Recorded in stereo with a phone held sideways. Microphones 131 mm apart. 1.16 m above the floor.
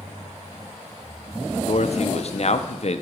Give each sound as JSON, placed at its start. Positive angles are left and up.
{"t": 1.7, "sound": "a man speaking", "side_deg": 55, "distance_m": 0.5}